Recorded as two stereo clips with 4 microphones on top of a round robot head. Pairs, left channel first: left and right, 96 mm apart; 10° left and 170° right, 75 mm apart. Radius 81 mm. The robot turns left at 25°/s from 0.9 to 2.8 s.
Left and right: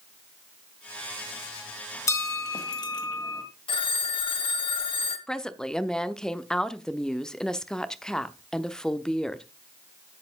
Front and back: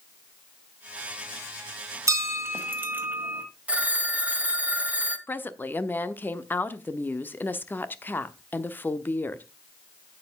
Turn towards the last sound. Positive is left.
turn(degrees=15)